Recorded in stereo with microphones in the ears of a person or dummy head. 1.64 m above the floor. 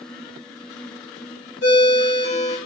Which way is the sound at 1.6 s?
60° left (ahead or behind).